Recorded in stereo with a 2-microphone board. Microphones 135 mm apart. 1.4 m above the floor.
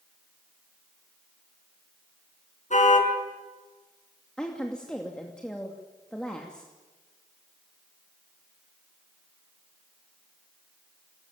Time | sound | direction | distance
2.7 | a car horn | 65° left (ahead or behind) | 6 m
4.4 | a woman speaking | 5° left (ahead or behind) | 2.5 m